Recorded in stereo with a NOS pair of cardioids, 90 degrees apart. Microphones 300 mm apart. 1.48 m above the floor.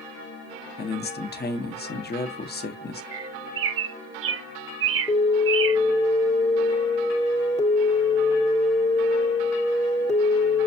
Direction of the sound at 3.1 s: 45° right.